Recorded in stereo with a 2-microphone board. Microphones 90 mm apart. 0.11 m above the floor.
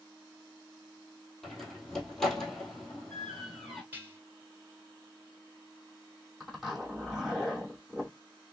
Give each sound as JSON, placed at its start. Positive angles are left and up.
{"t": 1.4, "sound": "a door slam", "side_deg": 5, "distance_m": 1.8}
{"t": 3.9, "sound": "dishes clattering", "side_deg": -25, "distance_m": 1.3}
{"t": 6.4, "sound": "a zipper", "side_deg": 0, "distance_m": 3.0}